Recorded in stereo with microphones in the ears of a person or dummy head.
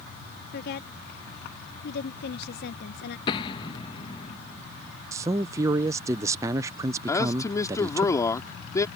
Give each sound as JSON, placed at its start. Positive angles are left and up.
{"t": 0.5, "sound": "a woman speaking", "side_deg": 55}
{"t": 3.3, "sound": "an explosion", "side_deg": 30}
{"t": 5.1, "sound": "a man speaking", "side_deg": -20}
{"t": 7.1, "sound": "a man speaking", "side_deg": 15}